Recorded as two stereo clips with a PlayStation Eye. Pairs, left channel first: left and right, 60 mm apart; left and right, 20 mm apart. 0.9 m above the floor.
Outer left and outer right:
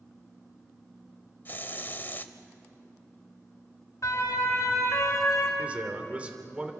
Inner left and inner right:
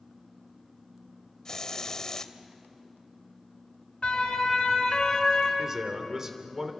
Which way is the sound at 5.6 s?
25° right (ahead or behind).